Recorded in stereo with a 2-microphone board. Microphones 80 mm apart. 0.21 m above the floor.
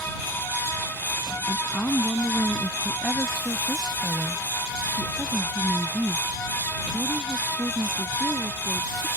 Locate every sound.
1.5 s a woman speaking: 25° left (ahead or behind); by 9.1 s 30° right (ahead or behind)